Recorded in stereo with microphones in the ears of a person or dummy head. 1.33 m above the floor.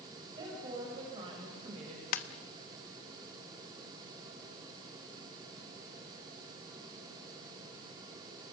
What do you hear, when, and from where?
0.3 s a woman speaking: 25° right (ahead or behind), 6 m; by 2.0 s 40° right (ahead or behind), 5 m
2.1 s a ringtone: 55° left (ahead or behind), 1.1 m